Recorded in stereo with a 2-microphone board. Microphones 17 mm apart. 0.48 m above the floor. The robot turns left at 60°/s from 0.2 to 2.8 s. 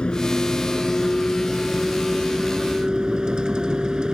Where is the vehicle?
105° left; by 4.1 s 50° right.